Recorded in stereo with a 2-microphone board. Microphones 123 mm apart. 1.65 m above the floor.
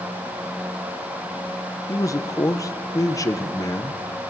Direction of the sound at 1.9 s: 30° left (ahead or behind).